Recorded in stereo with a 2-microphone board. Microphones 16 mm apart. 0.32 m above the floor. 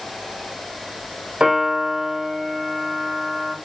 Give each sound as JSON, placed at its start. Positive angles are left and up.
{"t": 1.4, "sound": "a piano", "side_deg": -80, "distance_m": 6.5}